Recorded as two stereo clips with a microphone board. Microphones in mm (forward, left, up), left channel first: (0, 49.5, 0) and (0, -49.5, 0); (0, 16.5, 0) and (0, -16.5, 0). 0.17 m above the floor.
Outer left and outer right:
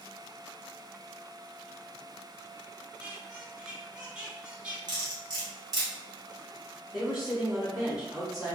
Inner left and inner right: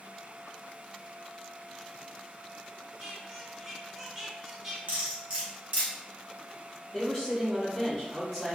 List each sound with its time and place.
3.0 s a squeak: 10° right (ahead or behind), 0.9 m
4.9 s cutlery clinking: 50° right (ahead or behind), 1.3 m
6.9 s a woman speaking: 5° right (ahead or behind), 1.0 m